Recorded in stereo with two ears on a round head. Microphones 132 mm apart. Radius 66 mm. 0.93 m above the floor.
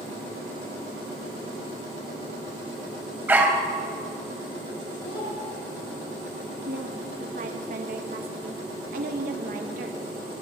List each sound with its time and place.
3.3 s a dog barking: 10° right (ahead or behind), 1.5 m
5.0 s a child speaking: 70° left (ahead or behind), 7 m
6.7 s a woman speaking: 60° right (ahead or behind), 1.1 m